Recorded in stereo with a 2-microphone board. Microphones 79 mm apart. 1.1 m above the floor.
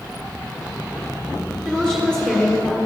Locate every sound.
1.6 s a woman speaking: 15° left (ahead or behind), 1.9 m